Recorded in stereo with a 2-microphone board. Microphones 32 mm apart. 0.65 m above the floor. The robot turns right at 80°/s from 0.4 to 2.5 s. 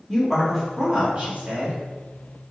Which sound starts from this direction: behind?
A woman speaking, at 0.1 s.